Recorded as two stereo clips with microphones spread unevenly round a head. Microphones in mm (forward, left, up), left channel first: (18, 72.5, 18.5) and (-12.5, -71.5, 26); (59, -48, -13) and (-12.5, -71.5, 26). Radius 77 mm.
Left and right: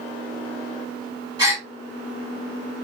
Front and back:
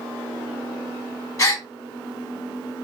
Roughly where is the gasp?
Ahead right.